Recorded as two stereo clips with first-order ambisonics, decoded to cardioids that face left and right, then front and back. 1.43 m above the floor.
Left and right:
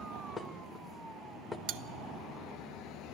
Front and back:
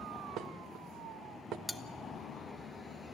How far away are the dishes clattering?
About 0.9 m.